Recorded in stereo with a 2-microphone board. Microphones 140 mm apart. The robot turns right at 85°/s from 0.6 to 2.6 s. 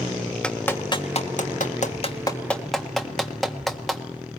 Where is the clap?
10° left (ahead or behind), 1.5 m; by 4.0 s centre (ahead or behind), 1.5 m.